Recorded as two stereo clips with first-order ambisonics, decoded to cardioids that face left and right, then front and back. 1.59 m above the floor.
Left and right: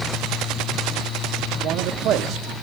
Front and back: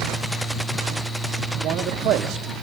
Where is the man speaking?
135° right, 0.9 m.